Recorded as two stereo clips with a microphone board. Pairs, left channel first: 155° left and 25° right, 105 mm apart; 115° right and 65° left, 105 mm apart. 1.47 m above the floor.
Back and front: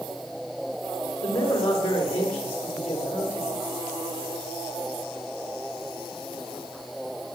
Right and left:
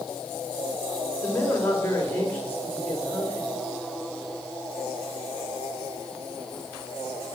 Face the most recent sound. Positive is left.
turn(degrees=175)